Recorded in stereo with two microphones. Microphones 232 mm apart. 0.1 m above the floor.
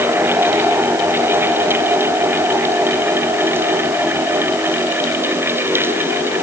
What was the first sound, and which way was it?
Only background noise.